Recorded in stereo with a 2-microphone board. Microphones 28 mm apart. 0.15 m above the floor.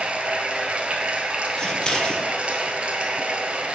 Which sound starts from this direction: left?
Scissors, at 1.6 s.